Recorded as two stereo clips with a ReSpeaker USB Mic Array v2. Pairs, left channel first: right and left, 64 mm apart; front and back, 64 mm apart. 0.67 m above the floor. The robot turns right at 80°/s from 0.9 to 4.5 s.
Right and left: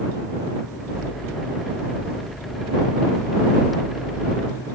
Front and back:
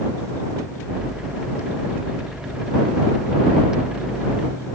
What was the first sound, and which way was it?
Only background noise.